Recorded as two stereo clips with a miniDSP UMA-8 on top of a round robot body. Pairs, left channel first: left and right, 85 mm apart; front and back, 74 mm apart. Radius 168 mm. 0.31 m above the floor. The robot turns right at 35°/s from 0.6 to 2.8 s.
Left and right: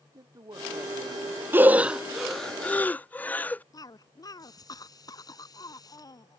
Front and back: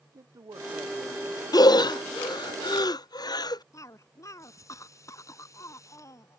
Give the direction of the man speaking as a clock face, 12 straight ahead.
5 o'clock.